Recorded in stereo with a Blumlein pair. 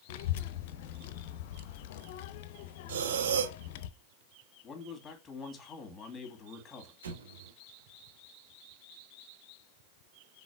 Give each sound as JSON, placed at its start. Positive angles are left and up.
{"t": 0.1, "sound": "a child speaking", "azimuth_deg": 50, "distance_m": 0.7}
{"t": 2.9, "sound": "breathing", "azimuth_deg": -60, "distance_m": 0.7}
{"t": 4.6, "sound": "a man speaking", "azimuth_deg": 15, "distance_m": 2.0}
{"t": 7.0, "sound": "an explosion", "azimuth_deg": -65, "distance_m": 1.2}